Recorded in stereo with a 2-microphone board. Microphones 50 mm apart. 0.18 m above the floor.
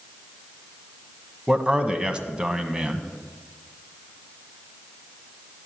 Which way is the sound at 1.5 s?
20° right (ahead or behind).